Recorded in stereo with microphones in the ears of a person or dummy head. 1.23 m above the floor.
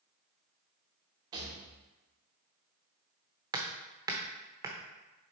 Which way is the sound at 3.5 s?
15° right (ahead or behind).